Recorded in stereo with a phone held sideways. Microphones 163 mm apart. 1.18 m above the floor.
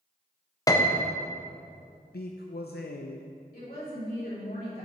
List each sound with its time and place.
0.7 s a piano: 20° left (ahead or behind), 0.6 m
2.1 s a man speaking: 75° left (ahead or behind), 0.5 m
3.5 s a woman speaking: 65° left (ahead or behind), 3 m